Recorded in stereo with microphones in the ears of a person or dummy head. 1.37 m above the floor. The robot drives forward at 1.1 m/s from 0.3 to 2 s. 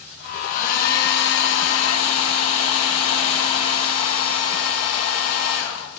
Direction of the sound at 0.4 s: 50° left (ahead or behind).